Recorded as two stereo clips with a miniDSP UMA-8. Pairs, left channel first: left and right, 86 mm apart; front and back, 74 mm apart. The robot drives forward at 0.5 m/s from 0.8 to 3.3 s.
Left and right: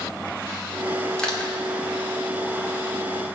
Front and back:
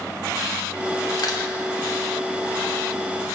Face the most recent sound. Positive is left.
turn(degrees=15)